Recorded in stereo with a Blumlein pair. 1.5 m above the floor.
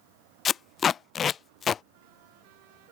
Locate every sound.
0.5 s tape being pulled: 20° left